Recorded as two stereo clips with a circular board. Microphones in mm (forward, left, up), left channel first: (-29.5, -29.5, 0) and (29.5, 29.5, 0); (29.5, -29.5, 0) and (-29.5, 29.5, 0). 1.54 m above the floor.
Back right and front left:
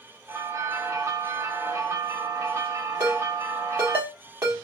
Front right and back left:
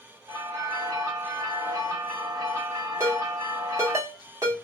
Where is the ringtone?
100° left, 1.4 m.